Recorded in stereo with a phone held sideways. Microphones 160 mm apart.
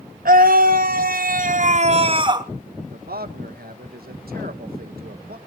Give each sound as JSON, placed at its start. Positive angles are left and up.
{"t": 0.2, "sound": "a scream", "side_deg": -70, "distance_m": 1.4}
{"t": 2.9, "sound": "a man speaking", "side_deg": -85, "distance_m": 1.3}